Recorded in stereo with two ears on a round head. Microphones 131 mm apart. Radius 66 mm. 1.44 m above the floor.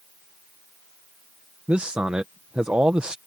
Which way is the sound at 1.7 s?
10° right (ahead or behind).